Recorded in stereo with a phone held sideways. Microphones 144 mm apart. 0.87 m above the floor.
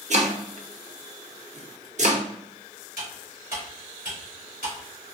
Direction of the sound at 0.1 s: 55° right (ahead or behind).